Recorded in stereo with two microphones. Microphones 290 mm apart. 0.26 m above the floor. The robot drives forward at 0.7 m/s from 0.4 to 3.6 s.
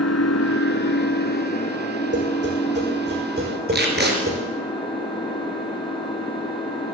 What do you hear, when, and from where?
0.0 s an engine running: 55° left (ahead or behind), 1.0 m; by 7.0 s 15° left (ahead or behind), 3 m
2.1 s tapping: 40° right (ahead or behind), 5.5 m; by 4.4 s 30° right (ahead or behind), 6.5 m
3.7 s tape being pulled: 35° right (ahead or behind), 3 m